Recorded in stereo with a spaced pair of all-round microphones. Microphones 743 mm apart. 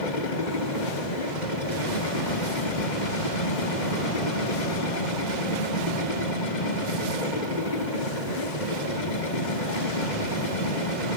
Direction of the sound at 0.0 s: 75° left (ahead or behind).